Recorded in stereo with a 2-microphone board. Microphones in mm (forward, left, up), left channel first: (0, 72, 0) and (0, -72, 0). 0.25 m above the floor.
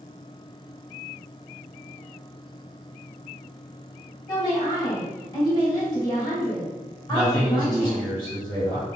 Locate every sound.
4.3 s a woman speaking: 30° left (ahead or behind), 1.5 m
7.1 s a man speaking: 30° left (ahead or behind), 1.9 m